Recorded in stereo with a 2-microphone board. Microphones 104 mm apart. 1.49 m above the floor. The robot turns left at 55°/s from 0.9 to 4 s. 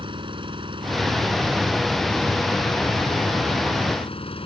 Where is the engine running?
125° right; by 4.5 s 65° left.